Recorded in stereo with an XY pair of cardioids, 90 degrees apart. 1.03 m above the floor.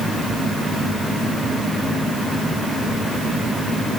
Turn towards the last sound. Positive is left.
No sound to turn to.